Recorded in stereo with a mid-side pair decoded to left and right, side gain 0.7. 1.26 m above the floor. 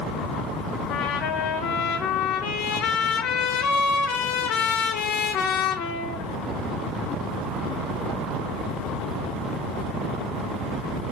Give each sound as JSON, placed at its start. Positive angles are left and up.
{"t": 0.9, "sound": "a trumpet", "azimuth_deg": 65, "distance_m": 1.7}